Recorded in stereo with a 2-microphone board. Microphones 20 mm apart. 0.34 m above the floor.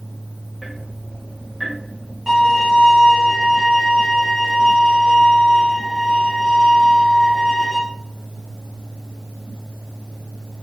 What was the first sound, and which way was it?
Ticking, 10° right (ahead or behind).